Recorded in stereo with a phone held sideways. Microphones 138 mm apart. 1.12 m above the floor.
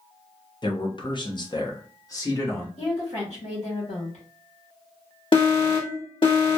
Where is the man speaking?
35° left (ahead or behind), 0.8 m; by 2.7 s 25° left (ahead or behind), 1.5 m.